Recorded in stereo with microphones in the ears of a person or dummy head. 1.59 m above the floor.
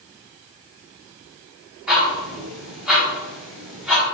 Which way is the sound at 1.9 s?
5° right (ahead or behind).